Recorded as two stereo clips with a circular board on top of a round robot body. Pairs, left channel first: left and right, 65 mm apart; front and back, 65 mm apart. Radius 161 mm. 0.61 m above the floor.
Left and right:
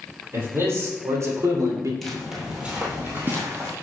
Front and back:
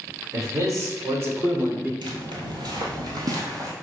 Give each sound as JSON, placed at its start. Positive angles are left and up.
{"t": 0.3, "sound": "a man speaking", "azimuth_deg": -140, "distance_m": 3.0}
{"t": 2.0, "sound": "footsteps", "azimuth_deg": 175, "distance_m": 1.2}